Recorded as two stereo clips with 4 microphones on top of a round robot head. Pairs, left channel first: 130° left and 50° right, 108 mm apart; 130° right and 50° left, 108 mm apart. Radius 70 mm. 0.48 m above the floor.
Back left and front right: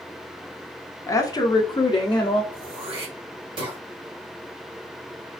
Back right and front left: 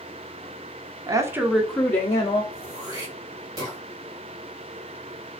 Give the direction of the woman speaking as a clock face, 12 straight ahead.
9 o'clock.